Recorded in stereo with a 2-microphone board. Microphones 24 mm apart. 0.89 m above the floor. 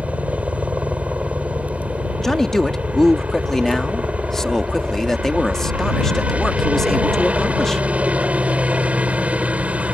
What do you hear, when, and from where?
0.0 s a helicopter: 65° right (ahead or behind)
2.2 s a man speaking: 20° left (ahead or behind)